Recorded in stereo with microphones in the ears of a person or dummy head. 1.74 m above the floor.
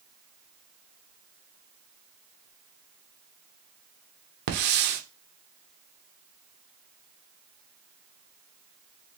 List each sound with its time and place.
4.5 s a hiss: 55° right (ahead or behind), 0.9 m